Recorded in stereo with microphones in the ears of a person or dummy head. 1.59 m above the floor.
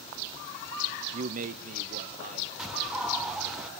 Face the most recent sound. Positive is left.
turn(degrees=0)  # may be behind; listen again after turning